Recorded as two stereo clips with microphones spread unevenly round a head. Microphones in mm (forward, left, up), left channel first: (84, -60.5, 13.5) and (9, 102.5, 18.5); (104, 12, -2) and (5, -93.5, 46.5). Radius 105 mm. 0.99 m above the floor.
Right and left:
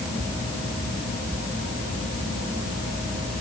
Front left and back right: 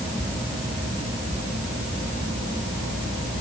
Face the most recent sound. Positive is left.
No sound to turn to.